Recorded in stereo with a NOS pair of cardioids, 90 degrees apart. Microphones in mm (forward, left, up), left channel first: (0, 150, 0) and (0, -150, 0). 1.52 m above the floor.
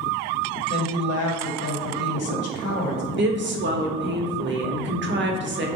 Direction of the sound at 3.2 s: 40° right.